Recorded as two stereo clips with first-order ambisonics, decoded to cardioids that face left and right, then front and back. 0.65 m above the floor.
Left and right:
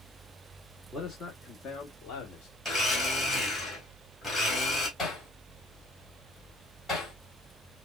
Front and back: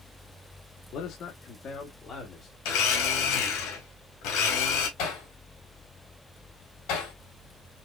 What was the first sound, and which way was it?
A man speaking, 20° left.